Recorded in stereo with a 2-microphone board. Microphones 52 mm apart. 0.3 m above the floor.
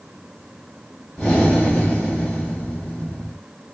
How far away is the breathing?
About 1.4 m.